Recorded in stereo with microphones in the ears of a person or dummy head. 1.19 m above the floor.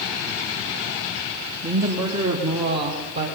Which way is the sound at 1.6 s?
15° right (ahead or behind).